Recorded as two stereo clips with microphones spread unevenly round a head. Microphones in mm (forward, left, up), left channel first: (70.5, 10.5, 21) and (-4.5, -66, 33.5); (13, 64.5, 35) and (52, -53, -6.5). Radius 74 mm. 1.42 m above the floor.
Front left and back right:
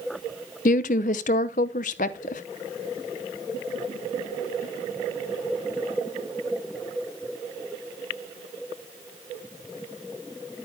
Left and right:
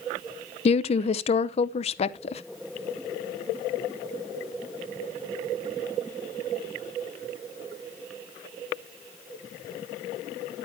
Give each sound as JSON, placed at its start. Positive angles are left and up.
{"t": 0.7, "sound": "a woman speaking", "azimuth_deg": 75, "distance_m": 0.7}